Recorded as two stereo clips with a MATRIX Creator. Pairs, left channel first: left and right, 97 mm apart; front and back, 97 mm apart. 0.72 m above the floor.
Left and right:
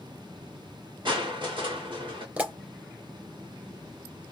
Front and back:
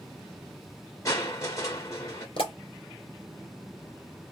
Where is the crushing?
55° right, 2 m.